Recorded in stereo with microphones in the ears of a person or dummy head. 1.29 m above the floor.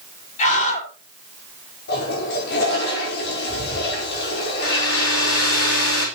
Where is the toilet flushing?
60° left (ahead or behind), 5 m.